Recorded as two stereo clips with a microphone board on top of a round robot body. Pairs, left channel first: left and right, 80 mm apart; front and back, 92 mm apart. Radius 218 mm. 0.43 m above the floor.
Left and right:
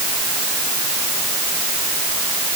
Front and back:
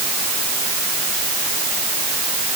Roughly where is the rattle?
I don't hear a rattle.